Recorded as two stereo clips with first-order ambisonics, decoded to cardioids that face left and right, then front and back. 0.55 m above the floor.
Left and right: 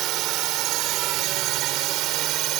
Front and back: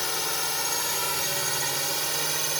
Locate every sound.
0.0 s a drone: 75° right; by 2.6 s 105° right